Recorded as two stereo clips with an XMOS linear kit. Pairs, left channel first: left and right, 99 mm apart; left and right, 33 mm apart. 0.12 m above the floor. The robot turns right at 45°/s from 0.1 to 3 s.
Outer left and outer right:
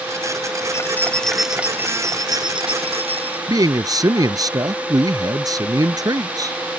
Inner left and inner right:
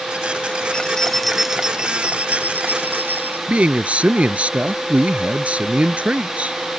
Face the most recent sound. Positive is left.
turn(degrees=-40)  # may be behind; listen again after turning